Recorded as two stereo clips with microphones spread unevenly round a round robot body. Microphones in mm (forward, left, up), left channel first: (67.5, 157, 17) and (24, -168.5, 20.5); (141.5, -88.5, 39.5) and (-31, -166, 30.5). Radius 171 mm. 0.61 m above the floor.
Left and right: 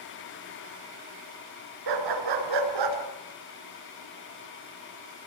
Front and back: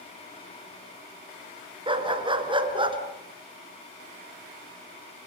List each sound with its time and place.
1.9 s a dog barking: 95° right, 3 m